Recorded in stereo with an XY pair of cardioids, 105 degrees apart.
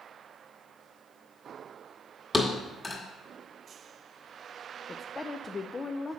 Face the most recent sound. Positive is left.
turn(degrees=25)